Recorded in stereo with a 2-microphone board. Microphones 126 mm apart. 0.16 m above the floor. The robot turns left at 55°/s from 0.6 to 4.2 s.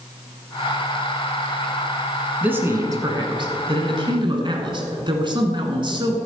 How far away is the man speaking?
About 1.5 m.